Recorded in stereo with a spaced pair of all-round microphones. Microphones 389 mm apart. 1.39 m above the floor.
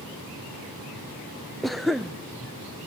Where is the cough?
Centre (ahead or behind), 0.6 m.